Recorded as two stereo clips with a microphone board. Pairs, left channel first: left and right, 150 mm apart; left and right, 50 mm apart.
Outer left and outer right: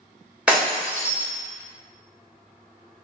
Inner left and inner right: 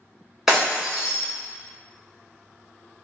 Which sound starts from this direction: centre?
Breaking glass, at 0.5 s.